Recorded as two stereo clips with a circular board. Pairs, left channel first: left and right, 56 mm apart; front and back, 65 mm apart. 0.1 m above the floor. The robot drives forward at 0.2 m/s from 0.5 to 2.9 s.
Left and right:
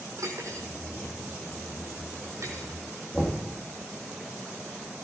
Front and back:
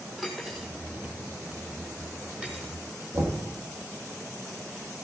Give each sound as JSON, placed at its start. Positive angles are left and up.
{"t": 0.2, "sound": "cutlery clinking", "azimuth_deg": -95, "distance_m": 2.0}
{"t": 3.1, "sound": "knocking", "azimuth_deg": 175, "distance_m": 3.0}